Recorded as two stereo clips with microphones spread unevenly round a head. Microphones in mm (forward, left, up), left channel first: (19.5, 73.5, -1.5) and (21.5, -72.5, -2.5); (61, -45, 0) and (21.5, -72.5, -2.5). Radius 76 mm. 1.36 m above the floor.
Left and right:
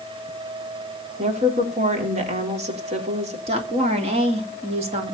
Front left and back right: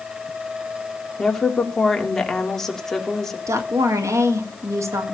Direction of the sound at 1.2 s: 45° right.